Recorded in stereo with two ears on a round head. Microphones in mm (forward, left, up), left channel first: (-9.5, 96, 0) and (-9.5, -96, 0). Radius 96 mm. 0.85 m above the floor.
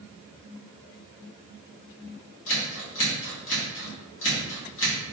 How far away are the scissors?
About 1.4 m.